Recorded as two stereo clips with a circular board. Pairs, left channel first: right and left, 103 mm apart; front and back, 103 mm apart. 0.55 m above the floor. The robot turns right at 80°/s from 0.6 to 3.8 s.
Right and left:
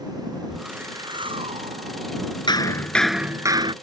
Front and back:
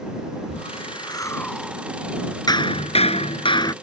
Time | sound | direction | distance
0.5 | a whoosh | 5° left | ?
2.5 | hammering | 50° right | ?